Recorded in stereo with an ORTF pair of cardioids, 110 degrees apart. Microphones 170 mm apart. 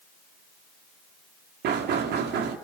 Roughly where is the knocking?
Right.